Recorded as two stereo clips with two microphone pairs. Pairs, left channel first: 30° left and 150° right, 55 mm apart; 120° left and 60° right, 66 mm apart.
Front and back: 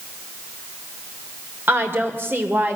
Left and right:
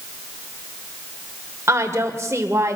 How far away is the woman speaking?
About 2.5 m.